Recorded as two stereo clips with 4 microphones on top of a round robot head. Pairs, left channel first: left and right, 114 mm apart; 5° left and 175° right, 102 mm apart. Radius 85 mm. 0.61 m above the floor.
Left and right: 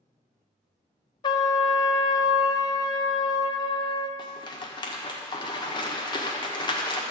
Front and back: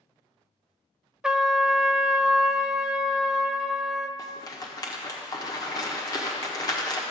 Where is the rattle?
50° left, 1.6 m.